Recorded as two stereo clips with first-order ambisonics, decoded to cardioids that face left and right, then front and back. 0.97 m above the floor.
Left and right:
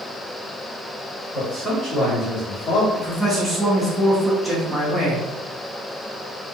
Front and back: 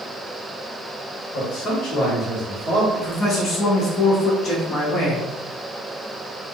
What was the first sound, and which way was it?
A man speaking, 15° left.